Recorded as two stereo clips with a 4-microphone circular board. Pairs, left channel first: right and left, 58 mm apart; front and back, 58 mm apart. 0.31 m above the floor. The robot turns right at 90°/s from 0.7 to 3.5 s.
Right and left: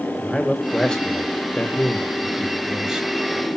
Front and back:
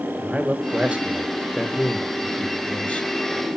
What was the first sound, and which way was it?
A man speaking, 170° right.